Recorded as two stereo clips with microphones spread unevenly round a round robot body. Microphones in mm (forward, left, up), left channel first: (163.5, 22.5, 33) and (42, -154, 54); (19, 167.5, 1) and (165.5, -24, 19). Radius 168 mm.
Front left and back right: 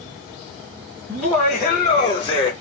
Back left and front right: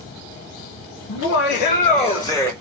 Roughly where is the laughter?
Behind left.